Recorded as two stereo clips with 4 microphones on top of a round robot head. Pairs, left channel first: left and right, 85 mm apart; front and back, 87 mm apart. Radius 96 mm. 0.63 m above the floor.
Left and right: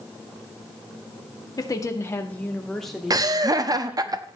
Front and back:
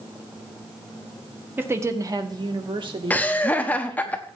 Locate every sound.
1.6 s a woman speaking: 120° left, 1.6 m; by 4.1 s 165° right, 3 m
3.1 s laughter: 65° right, 0.9 m